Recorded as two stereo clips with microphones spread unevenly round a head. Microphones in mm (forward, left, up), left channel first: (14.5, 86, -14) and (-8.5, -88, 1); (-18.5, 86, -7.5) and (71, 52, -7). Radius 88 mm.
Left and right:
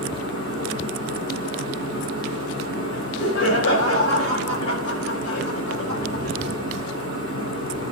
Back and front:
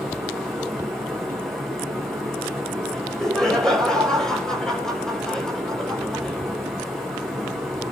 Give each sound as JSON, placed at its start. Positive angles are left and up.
{"t": 0.0, "sound": "a fan", "azimuth_deg": 75, "distance_m": 8.5}
{"t": 2.9, "sound": "laughter", "azimuth_deg": 75, "distance_m": 5.5}